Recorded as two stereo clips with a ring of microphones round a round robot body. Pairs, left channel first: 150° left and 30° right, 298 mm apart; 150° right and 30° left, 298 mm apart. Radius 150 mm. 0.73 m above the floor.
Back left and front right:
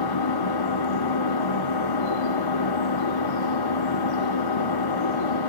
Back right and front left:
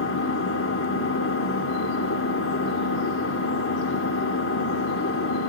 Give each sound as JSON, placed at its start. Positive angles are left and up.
{"t": 0.0, "sound": "an engine running", "azimuth_deg": 160, "distance_m": 1.2}